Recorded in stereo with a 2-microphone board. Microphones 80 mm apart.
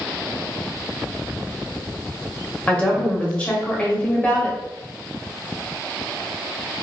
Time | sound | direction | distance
2.7 | a woman speaking | 15° left (ahead or behind) | 0.9 m